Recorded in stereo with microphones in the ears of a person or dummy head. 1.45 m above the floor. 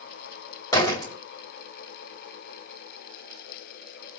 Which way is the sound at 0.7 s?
20° left (ahead or behind).